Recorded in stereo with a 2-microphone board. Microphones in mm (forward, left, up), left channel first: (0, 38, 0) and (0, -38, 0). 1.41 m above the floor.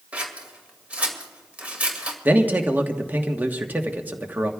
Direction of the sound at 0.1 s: 20° right (ahead or behind).